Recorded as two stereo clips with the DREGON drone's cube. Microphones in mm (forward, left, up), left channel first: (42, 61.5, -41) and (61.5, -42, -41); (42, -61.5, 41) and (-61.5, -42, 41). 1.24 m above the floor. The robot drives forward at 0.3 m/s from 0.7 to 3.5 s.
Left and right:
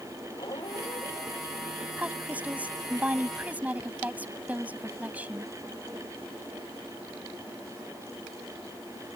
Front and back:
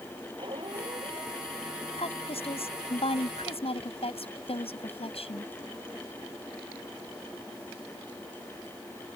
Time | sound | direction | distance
0.4 | a squeak | 140° left | ?
2.0 | a woman speaking | 5° right | ?